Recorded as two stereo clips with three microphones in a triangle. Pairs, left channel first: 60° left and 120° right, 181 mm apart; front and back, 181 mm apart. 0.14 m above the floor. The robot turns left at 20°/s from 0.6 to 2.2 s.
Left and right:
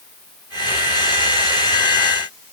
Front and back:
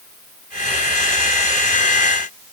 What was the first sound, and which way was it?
Only background noise.